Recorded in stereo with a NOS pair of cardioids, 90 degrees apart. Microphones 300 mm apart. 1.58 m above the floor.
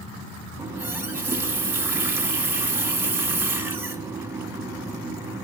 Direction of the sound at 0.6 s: 5° right.